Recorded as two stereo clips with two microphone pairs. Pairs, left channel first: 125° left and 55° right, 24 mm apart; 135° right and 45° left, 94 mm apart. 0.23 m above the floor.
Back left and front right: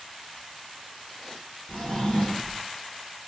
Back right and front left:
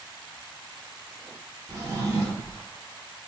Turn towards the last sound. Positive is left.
turn(degrees=100)